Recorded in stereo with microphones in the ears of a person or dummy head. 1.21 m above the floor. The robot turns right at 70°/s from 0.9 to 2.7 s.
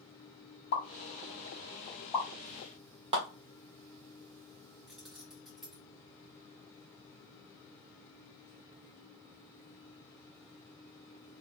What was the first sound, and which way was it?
A pop, 60° left (ahead or behind).